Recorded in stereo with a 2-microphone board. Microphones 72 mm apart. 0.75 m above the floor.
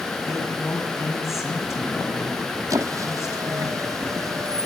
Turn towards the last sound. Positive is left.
turn(degrees=-50)  # may be behind; listen again after turning